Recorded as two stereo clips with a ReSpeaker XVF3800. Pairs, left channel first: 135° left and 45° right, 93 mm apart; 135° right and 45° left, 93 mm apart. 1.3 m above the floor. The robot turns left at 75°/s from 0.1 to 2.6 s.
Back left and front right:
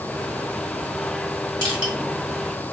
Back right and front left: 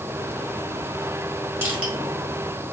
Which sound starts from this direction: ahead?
Crushing, at 1.6 s.